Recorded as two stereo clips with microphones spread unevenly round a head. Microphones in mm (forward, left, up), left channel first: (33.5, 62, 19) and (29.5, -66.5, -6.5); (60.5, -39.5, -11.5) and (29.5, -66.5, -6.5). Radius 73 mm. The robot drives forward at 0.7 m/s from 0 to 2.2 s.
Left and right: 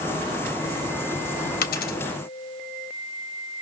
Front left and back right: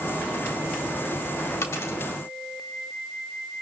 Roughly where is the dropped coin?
Left.